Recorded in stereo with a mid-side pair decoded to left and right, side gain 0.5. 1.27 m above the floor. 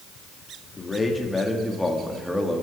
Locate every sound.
0.8 s a man speaking: 25° left, 3 m; by 2.6 s straight ahead, 3 m